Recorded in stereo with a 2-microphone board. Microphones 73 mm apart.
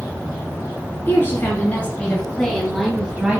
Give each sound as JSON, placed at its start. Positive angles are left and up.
{"t": 1.1, "sound": "a woman speaking", "side_deg": 30, "distance_m": 2.5}